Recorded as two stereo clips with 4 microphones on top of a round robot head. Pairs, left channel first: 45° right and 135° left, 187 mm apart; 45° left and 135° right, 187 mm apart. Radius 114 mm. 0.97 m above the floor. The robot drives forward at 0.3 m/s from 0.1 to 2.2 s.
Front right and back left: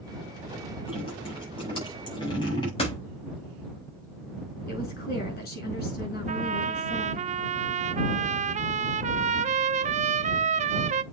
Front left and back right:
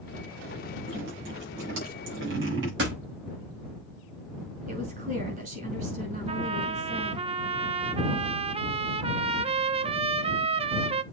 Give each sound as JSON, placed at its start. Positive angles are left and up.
{"t": 0.9, "sound": "dripping", "azimuth_deg": -110, "distance_m": 6.0}
{"t": 2.8, "sound": "a door slam", "azimuth_deg": -105, "distance_m": 5.5}
{"t": 4.7, "sound": "a woman speaking", "azimuth_deg": -85, "distance_m": 6.0}
{"t": 6.3, "sound": "a trumpet", "azimuth_deg": 175, "distance_m": 0.6}